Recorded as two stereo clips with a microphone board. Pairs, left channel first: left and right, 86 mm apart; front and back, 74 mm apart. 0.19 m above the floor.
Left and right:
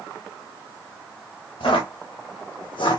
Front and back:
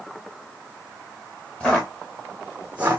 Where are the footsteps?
75° left, 1.3 m; by 3.0 s 120° left, 0.5 m.